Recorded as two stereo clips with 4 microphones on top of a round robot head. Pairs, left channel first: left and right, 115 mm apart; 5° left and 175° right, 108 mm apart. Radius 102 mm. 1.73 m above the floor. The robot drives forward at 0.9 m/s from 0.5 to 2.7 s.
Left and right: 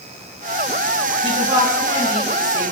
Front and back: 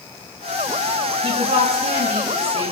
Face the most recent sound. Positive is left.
turn(degrees=-150)